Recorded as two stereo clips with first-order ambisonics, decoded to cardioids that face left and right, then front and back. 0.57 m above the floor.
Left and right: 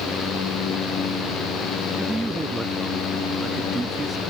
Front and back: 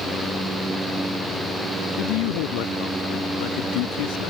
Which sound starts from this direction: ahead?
A man speaking, at 2.0 s.